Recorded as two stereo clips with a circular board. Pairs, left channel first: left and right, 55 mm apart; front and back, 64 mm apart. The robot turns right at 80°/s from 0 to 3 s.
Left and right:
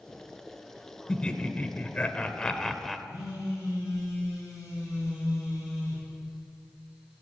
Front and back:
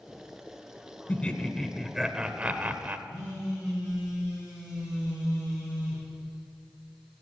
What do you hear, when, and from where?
1.1 s laughter: 30° left, 0.9 m; by 3.0 s straight behind, 0.9 m
3.1 s a phone buzzing: 100° left, 6.5 m